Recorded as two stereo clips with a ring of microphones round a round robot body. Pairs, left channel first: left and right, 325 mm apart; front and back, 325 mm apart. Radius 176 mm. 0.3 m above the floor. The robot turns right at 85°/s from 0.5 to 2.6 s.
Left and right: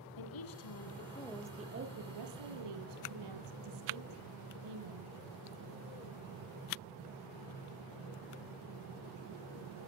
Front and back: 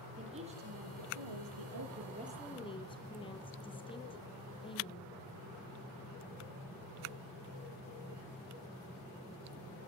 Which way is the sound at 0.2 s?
105° left.